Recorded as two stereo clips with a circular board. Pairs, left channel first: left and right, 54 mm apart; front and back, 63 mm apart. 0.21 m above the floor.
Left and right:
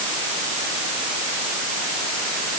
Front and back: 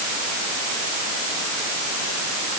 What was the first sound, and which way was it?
Only background noise.